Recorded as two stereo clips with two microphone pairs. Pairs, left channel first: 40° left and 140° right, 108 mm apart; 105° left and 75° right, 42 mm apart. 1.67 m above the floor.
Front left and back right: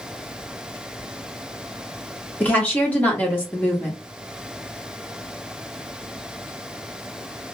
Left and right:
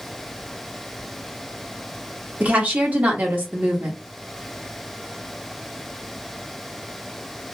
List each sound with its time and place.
2.4 s a woman speaking: 35° right, 1.4 m